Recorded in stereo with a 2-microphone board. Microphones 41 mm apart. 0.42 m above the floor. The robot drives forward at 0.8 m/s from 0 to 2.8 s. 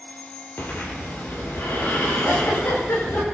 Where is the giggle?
85° left, 9.5 m; by 3.2 s 80° left, 9.5 m.